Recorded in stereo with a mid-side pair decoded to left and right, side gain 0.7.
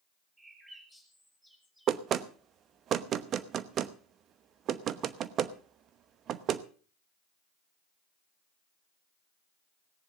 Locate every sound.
0.4 s a bird: 10° right, 5.5 m
1.9 s knocking: 45° right, 0.9 m